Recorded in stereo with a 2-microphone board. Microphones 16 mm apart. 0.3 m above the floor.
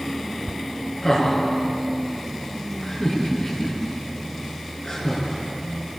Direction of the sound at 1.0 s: 40° left (ahead or behind).